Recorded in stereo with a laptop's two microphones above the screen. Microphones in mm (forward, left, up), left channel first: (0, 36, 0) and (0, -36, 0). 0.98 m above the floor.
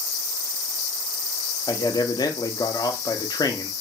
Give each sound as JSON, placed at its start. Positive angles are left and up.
{"t": 1.7, "sound": "a man speaking", "side_deg": 65, "distance_m": 0.6}